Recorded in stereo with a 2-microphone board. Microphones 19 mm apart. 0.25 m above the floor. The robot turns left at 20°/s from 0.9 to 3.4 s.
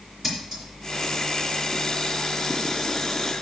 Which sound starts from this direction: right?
Scissors, at 0.2 s.